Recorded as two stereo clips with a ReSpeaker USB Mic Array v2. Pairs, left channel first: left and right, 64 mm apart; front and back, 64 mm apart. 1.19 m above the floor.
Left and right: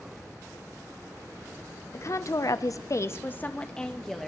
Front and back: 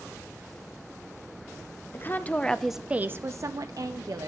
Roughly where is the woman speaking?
Ahead left.